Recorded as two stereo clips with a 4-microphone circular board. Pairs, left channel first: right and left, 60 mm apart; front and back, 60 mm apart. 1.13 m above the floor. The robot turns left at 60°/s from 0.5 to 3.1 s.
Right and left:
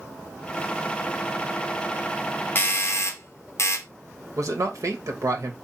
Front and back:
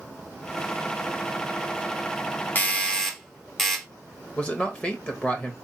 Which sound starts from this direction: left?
A man speaking, at 4.4 s.